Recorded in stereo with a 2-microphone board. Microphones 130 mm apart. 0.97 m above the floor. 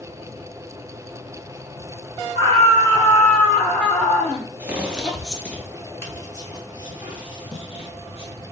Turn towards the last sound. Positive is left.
turn(degrees=45)  # may be behind; listen again after turning